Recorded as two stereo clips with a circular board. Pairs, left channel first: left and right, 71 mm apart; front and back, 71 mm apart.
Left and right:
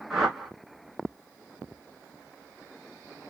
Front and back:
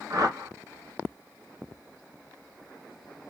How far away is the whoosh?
About 1.8 m.